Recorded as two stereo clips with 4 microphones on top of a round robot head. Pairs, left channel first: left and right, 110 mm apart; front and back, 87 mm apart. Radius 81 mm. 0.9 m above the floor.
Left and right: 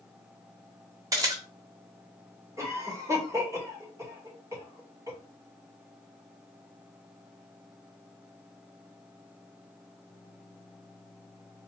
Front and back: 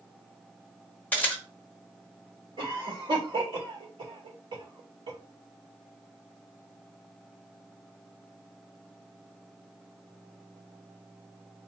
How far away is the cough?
About 3 m.